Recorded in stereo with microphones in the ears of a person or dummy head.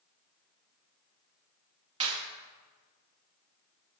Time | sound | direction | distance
2.0 | a clap | 35° right (ahead or behind) | 2.5 m